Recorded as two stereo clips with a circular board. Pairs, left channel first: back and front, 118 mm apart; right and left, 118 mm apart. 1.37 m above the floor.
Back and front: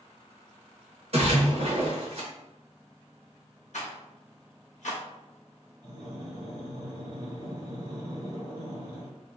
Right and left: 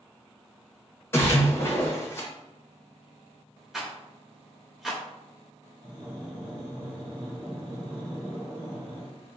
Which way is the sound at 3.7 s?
175° left.